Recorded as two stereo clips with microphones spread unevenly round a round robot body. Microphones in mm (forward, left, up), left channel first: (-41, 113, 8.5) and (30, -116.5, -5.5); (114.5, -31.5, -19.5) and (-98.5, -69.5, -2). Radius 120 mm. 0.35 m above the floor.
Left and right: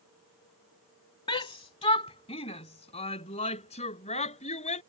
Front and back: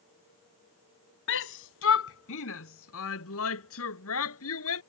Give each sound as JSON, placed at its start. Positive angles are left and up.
{"t": 1.3, "sound": "a shout", "azimuth_deg": 40}